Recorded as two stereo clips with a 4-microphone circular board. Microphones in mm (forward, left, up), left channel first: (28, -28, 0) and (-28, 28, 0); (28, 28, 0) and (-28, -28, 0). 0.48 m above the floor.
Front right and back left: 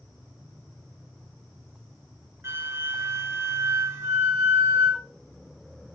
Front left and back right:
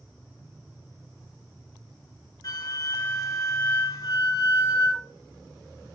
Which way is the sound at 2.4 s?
80° left.